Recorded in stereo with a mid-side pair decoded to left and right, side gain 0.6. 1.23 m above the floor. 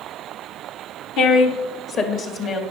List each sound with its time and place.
1.2 s a woman speaking: 65° left, 1.1 m; by 2.6 s 45° left, 1.7 m